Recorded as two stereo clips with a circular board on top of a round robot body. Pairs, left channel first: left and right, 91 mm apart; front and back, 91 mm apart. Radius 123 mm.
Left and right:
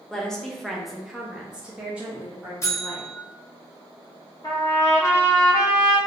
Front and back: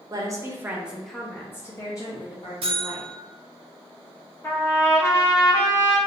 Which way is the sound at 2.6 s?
150° left.